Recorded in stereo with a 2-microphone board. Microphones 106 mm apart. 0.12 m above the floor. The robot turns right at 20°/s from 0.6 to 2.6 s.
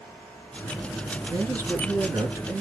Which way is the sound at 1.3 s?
35° right (ahead or behind).